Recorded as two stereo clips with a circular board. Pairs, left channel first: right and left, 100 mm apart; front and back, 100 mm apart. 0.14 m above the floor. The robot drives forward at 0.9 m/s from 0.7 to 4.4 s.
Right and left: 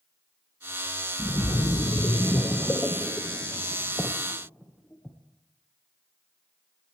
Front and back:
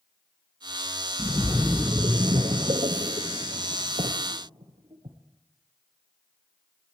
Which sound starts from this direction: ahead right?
A splash, at 1.2 s.